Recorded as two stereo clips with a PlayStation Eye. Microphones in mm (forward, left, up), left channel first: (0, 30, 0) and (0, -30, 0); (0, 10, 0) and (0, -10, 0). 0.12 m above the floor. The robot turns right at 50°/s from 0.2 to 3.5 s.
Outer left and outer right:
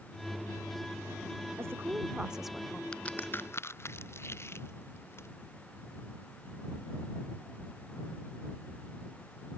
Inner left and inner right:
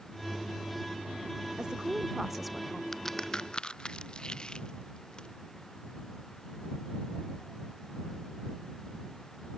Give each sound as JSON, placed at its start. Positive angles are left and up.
{"t": 1.6, "sound": "a woman speaking", "azimuth_deg": -50}
{"t": 2.9, "sound": "a crack", "side_deg": 15}